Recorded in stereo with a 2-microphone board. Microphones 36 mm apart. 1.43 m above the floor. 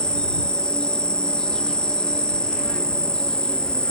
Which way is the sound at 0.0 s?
25° left (ahead or behind).